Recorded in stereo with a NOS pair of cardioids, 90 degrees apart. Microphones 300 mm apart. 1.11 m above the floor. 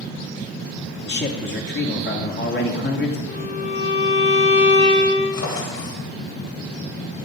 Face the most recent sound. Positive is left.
turn(degrees=60)